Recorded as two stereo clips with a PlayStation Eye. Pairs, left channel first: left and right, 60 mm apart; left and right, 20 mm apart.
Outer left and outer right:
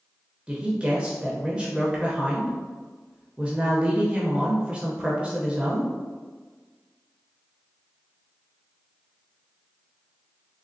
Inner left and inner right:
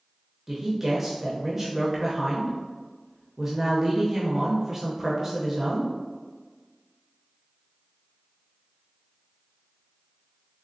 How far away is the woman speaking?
About 0.6 m.